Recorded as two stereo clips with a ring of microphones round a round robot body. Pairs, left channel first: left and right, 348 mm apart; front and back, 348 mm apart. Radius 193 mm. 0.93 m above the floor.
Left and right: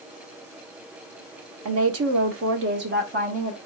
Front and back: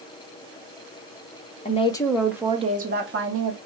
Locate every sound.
1.6 s a woman speaking: 65° right, 1.0 m; by 3.6 s 155° right, 1.0 m